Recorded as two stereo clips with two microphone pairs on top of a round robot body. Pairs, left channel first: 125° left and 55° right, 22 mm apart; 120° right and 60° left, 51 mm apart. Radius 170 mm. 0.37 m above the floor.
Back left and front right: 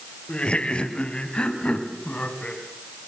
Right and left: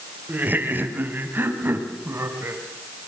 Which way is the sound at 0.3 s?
110° left.